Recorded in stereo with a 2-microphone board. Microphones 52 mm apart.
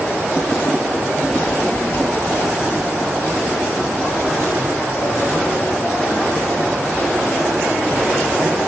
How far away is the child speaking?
About 1.7 m.